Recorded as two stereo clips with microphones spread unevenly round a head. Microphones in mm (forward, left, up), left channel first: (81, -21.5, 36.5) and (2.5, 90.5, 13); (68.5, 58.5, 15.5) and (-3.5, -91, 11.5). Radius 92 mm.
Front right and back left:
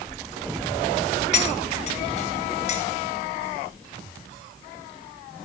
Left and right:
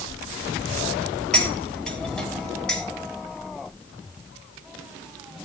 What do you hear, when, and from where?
1.3 s cutlery clinking: 20° right, 3.5 m